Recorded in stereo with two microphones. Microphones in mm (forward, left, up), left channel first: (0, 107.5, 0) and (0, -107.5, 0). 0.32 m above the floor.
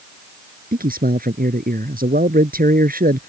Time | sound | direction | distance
0.7 | a man speaking | 45° right (ahead or behind) | ?